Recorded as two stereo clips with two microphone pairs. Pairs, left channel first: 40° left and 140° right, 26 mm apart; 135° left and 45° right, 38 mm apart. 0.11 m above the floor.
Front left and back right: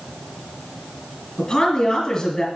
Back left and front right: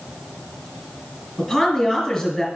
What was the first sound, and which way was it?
A woman speaking, 45° left.